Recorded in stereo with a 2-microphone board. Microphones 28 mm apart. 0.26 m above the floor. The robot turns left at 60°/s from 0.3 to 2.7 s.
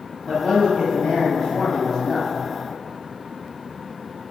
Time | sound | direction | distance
0.3 | a man speaking | 130° left | 1.2 m